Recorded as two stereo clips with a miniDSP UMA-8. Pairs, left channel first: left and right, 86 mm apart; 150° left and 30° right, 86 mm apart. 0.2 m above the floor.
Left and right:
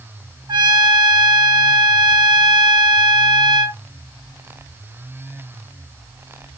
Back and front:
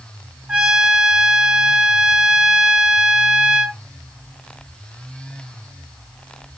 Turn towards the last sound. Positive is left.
turn(degrees=-110)